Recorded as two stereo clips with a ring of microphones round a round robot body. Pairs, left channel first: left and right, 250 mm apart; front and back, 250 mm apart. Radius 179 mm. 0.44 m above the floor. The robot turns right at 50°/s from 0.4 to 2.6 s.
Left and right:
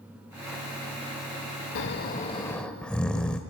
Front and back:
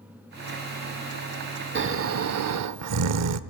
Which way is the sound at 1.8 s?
135° left.